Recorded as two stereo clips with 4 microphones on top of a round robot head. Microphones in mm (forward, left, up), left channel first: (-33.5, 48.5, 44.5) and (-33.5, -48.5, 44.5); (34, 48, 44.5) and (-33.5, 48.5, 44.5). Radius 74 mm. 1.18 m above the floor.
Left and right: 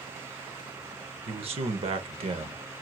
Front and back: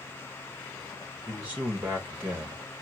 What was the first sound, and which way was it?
A man speaking, 110° right.